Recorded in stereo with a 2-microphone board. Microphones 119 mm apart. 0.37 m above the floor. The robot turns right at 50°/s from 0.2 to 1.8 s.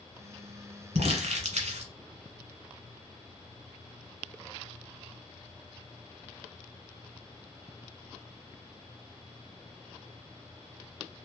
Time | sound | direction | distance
0.9 | crumpling | 70° right (ahead or behind) | 1.2 m